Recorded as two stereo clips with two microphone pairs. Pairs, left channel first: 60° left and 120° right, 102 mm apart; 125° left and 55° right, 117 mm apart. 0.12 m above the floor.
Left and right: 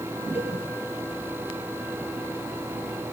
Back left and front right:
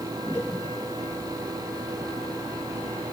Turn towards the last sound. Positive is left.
turn(degrees=40)